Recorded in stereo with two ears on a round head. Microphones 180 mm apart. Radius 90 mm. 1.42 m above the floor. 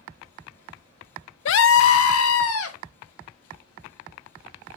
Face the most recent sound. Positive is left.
turn(degrees=85)